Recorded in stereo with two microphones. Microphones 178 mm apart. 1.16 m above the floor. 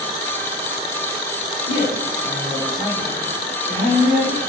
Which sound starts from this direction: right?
A woman speaking, at 1.7 s.